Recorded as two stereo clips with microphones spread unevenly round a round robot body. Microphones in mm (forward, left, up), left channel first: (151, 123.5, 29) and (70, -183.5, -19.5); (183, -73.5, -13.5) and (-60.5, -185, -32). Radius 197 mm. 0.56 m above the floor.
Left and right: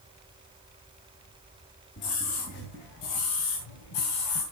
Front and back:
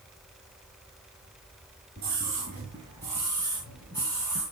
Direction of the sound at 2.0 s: 140° left.